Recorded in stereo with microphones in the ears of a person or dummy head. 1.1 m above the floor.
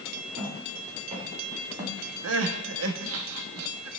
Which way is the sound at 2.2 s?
80° right.